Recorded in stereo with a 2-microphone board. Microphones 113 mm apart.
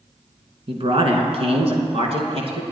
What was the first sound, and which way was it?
A man speaking, 55° right (ahead or behind).